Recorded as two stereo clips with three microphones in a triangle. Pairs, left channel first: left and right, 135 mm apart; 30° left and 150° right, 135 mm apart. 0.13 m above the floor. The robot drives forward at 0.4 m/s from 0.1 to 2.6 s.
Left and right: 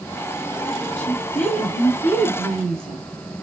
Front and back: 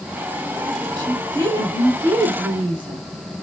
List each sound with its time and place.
1.0 s a woman speaking: 165° left, 2 m; by 3.0 s 170° left, 2.5 m